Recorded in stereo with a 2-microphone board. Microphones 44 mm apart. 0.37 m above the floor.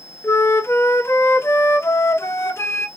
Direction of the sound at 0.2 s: 75° left (ahead or behind).